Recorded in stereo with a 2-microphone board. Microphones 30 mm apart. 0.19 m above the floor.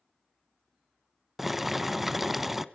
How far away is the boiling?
About 0.7 m.